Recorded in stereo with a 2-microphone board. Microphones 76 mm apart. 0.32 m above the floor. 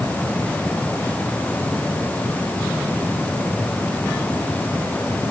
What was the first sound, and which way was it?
Only background noise.